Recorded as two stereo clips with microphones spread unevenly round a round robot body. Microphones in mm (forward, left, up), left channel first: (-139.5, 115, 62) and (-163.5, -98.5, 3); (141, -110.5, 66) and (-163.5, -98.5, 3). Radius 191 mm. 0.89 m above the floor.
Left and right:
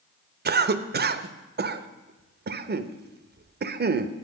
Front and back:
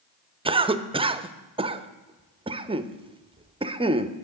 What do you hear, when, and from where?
0.5 s a cough: 115° right, 0.7 m